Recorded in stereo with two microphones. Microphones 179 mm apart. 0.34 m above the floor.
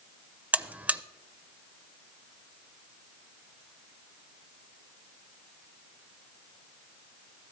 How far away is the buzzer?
About 0.5 m.